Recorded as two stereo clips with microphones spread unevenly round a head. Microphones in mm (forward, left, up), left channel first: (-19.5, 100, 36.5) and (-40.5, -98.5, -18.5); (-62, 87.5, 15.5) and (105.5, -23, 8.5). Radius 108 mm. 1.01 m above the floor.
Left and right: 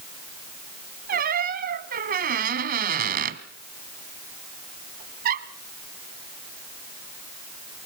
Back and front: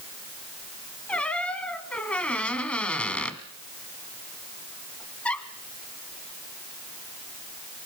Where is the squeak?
135° right, 1.0 m.